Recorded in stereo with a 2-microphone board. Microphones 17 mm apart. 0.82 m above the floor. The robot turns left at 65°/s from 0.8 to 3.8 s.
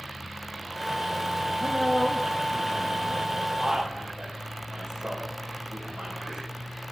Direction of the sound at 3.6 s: 45° right (ahead or behind).